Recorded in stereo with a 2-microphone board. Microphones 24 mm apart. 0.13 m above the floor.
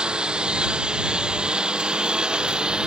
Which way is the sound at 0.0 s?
45° right (ahead or behind).